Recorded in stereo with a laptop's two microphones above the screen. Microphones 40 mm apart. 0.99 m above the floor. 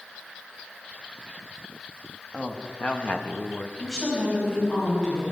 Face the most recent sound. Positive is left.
turn(degrees=15)  # may be behind; listen again after turning